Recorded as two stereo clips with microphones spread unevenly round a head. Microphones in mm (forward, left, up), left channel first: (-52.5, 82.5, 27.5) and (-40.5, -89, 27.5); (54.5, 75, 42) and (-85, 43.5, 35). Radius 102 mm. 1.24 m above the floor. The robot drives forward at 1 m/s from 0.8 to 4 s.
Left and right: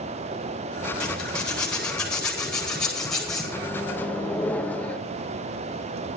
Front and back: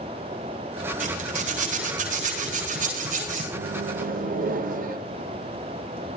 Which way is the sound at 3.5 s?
170° left.